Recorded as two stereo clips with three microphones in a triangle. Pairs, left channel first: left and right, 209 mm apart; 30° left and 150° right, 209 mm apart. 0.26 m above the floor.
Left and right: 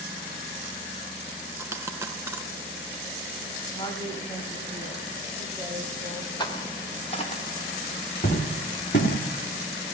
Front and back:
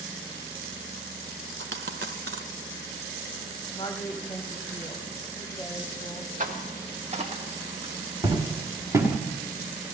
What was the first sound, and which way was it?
A dropped coin, 165° right.